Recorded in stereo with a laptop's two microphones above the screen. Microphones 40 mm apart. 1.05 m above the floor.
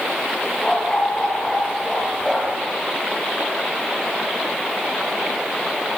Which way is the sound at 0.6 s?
20° left (ahead or behind).